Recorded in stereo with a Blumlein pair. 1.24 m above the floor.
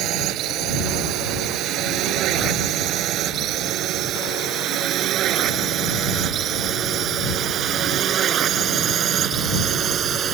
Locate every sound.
0.0 s a drone: 35° right; by 10.3 s 25° right